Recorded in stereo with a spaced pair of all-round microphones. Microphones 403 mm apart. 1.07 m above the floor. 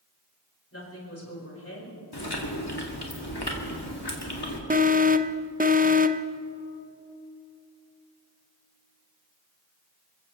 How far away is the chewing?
About 2 m.